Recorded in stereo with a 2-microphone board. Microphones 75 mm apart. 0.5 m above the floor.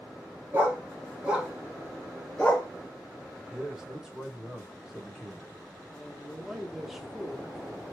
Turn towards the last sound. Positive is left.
turn(degrees=0)  # may be behind; listen again after turning